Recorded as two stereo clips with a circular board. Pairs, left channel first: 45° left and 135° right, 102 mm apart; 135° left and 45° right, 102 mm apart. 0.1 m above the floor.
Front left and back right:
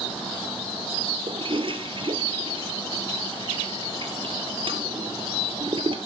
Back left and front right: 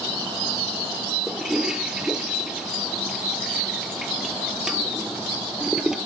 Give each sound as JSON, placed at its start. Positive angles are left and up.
{"t": 1.3, "sound": "a toilet flushing", "azimuth_deg": -130, "distance_m": 1.2}